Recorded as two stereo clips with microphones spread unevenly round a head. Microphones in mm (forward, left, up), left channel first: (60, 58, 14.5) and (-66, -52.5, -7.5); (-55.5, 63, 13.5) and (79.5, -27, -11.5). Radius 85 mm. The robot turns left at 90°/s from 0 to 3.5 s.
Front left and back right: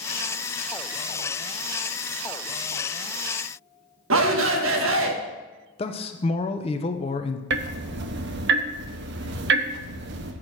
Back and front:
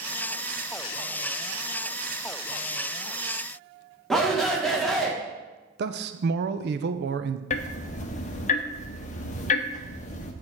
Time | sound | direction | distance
4.1 | a shout | 125° right | 1.3 m
5.8 | a man speaking | 10° right | 0.7 m
7.5 | ticking | 165° right | 0.7 m